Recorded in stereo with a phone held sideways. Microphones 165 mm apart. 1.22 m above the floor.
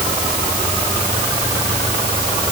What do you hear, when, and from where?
Only background noise.